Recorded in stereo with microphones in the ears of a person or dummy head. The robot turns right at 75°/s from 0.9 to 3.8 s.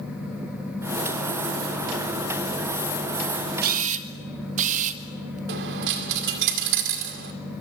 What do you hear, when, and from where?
3.6 s a camera shutter: 50° right (ahead or behind), 1.7 m; by 5.4 s 40° right (ahead or behind), 1.7 m
5.5 s a dropped coin: 60° right (ahead or behind), 2 m